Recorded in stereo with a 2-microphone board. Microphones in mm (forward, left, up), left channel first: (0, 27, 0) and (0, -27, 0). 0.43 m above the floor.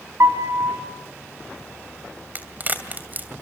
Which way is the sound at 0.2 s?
70° right (ahead or behind).